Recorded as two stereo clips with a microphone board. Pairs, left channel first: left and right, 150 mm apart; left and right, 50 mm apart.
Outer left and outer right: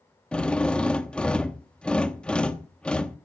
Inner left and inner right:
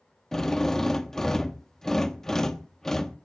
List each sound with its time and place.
0.3 s a drill: 5° left (ahead or behind), 1.0 m